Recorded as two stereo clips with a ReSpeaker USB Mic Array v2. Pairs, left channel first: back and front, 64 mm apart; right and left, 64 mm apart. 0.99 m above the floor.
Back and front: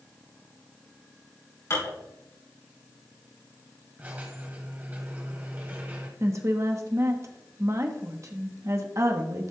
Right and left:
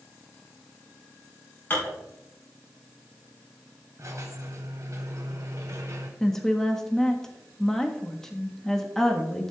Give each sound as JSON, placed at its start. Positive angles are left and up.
{"t": 1.7, "sound": "dishes clattering", "azimuth_deg": -145, "distance_m": 5.0}
{"t": 4.0, "sound": "a squeak", "azimuth_deg": 60, "distance_m": 1.6}
{"t": 6.2, "sound": "a woman speaking", "azimuth_deg": -10, "distance_m": 1.1}